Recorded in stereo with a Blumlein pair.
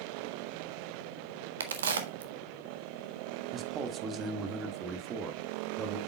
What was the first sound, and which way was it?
A crack, 65° right.